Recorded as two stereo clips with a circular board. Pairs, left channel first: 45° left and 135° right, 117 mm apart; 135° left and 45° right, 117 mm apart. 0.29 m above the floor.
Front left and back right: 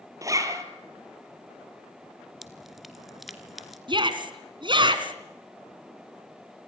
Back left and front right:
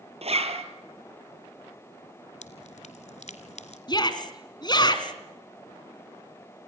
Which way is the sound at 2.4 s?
135° left.